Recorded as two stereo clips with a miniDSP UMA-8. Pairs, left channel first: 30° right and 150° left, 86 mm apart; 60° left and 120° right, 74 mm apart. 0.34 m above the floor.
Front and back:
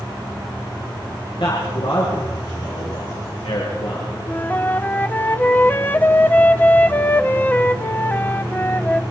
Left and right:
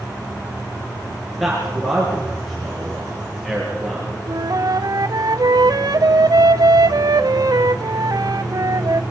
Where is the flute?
100° right, 0.7 m.